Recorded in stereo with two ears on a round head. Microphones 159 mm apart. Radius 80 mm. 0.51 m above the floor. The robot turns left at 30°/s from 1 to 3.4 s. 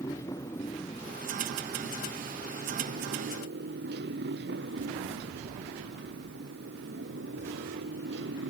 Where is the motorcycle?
15° left (ahead or behind); by 8.5 s 70° right (ahead or behind).